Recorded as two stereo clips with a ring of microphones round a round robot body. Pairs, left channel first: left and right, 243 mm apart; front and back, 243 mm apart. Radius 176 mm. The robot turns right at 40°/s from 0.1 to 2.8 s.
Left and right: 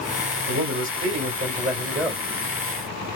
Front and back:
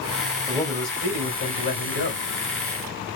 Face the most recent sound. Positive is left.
turn(degrees=5)